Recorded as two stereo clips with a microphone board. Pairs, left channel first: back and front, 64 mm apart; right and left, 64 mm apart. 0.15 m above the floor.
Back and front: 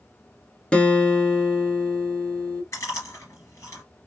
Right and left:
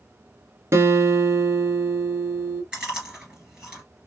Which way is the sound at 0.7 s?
110° left.